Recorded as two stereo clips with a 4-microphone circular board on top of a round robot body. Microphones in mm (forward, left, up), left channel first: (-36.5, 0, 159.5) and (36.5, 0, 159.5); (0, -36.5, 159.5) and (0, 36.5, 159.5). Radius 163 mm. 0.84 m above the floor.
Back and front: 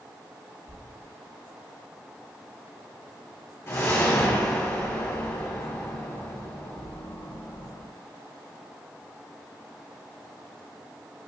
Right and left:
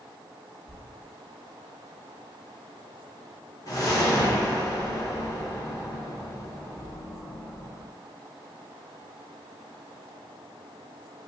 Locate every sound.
0.7 s a thud: 125° right, 1.2 m
3.7 s a whoosh: 125° right, 1.4 m